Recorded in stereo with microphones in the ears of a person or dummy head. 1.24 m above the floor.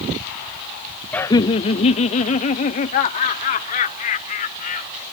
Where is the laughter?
5° left (ahead or behind); by 5.0 s 45° left (ahead or behind).